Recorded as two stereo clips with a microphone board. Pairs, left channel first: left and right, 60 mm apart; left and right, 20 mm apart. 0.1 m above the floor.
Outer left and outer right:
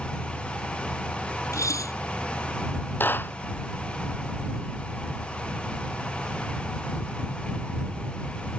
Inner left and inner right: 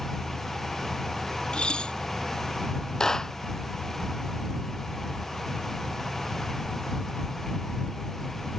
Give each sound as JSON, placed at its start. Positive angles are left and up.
{"t": 1.5, "sound": "dishes clattering", "side_deg": 65}
{"t": 3.0, "sound": "a clap", "side_deg": 35}